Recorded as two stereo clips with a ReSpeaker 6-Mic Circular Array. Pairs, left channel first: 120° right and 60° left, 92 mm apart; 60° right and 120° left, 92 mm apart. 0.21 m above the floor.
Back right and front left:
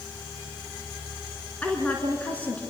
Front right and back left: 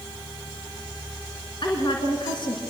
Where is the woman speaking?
50° right, 3 m.